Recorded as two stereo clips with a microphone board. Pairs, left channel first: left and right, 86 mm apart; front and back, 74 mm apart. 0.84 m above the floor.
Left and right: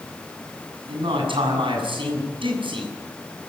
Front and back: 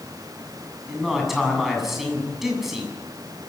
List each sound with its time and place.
0.9 s a man speaking: 95° right, 7.5 m